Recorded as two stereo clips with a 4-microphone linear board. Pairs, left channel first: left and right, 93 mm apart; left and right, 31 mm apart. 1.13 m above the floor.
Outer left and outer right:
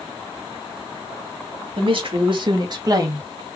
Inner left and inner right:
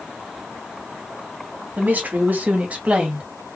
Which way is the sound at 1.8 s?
75° right (ahead or behind).